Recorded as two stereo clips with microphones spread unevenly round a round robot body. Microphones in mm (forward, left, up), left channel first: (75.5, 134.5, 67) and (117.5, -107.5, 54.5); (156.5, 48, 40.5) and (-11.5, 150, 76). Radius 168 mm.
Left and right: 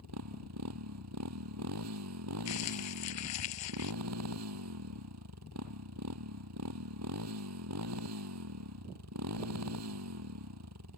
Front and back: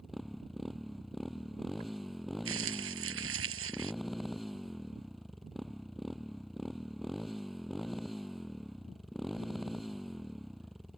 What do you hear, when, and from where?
0.0 s a motorcycle: 120° right
2.5 s crumpling: 140° left